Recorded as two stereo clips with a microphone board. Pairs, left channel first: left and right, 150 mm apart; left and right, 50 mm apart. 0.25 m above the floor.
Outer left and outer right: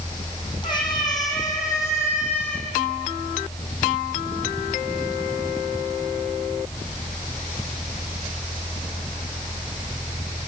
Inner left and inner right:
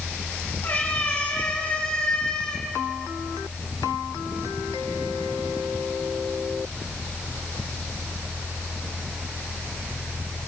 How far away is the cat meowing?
About 4 m.